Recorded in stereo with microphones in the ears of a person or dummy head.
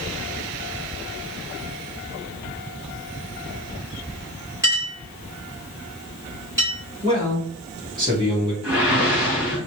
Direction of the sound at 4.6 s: 15° right (ahead or behind).